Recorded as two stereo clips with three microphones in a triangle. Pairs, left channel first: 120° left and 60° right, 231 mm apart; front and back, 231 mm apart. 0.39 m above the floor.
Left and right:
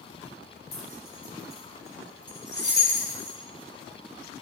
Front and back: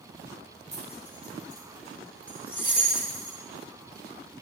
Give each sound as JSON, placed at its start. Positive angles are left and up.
{"t": 0.7, "sound": "keys jangling", "azimuth_deg": 105, "distance_m": 4.5}